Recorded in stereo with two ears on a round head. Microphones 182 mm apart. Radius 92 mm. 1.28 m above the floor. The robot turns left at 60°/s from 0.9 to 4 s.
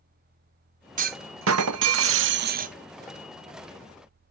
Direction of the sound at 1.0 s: 40° right.